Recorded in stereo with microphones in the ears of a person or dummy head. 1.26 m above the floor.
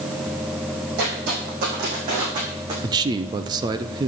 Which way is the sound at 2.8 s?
20° right (ahead or behind).